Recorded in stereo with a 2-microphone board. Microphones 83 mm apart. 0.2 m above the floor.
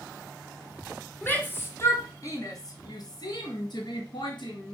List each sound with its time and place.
1.2 s a shout: 25° left (ahead or behind), 2 m; by 4.7 s 70° left (ahead or behind), 3 m